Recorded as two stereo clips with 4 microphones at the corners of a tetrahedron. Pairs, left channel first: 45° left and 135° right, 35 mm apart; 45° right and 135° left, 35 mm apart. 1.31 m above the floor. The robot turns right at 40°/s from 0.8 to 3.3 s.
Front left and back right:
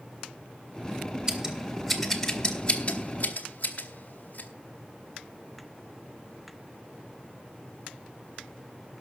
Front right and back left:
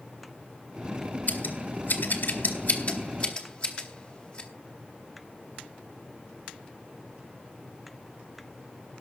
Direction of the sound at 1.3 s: 70° right.